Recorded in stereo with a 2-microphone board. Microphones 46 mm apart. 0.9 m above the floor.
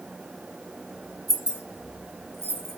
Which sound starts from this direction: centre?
Keys jangling, at 1.3 s.